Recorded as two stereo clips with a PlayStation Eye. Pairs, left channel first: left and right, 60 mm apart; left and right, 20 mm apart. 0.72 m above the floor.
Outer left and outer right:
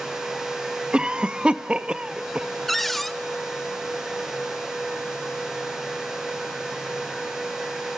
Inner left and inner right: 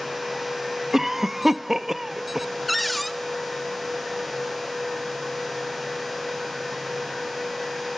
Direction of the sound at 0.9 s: 20° right (ahead or behind).